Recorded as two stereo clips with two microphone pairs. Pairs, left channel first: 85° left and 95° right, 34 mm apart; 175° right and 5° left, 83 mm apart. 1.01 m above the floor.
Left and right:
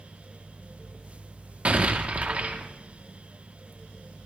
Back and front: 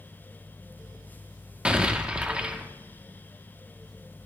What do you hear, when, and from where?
1.6 s an explosion: 70° right, 0.9 m